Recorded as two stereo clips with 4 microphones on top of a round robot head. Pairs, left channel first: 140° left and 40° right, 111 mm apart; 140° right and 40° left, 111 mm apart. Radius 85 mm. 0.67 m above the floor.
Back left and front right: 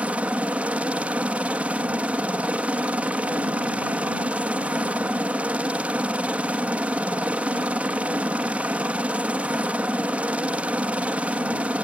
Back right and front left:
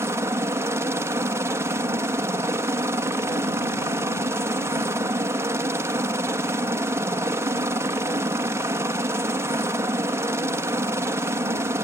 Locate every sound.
0.0 s a helicopter: 25° left